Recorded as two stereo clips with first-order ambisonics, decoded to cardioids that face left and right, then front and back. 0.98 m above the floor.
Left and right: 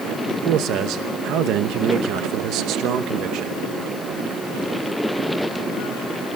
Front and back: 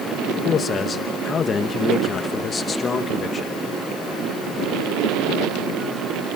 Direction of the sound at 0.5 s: 65° right.